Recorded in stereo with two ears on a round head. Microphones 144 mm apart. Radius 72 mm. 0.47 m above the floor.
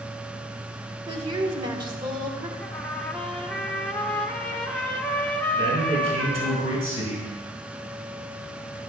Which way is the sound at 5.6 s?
40° right (ahead or behind).